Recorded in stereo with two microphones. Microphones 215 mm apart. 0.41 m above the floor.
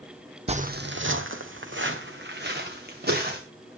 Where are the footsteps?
30° right (ahead or behind), 0.9 m; by 3.4 s 45° right (ahead or behind), 3.5 m.